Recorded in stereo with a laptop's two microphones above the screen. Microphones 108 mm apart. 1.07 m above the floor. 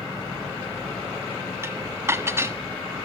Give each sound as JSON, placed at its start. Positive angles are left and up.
{"t": 1.6, "sound": "dishes clattering", "side_deg": -25, "distance_m": 1.2}